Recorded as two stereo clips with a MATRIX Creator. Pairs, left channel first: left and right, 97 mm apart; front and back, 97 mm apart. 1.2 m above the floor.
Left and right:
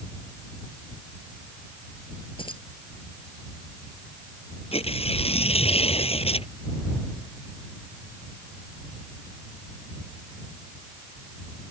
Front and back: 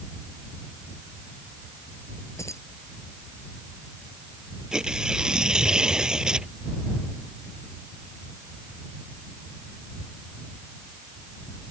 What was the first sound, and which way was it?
Keys jangling, 60° left.